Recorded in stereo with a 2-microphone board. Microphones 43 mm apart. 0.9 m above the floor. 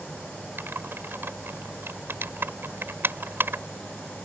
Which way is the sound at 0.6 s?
60° right (ahead or behind).